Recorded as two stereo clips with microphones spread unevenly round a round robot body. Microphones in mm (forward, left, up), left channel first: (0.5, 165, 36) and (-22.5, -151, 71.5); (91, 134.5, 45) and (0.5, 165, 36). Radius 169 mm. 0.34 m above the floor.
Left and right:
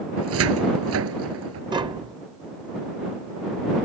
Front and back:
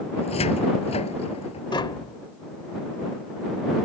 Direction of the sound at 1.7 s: 15° right.